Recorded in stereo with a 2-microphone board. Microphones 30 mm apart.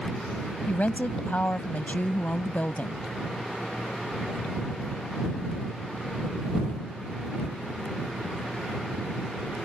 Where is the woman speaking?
60° left (ahead or behind).